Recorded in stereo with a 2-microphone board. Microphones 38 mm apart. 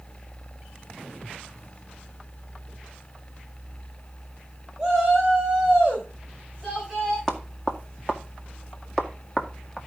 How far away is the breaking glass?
No breaking glass in this recording.